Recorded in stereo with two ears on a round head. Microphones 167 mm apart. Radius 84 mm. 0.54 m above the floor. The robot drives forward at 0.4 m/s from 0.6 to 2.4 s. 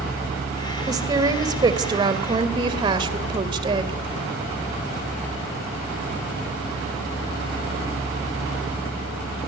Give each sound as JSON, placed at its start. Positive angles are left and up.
{"t": 0.9, "sound": "a woman speaking", "side_deg": -20, "distance_m": 3.0}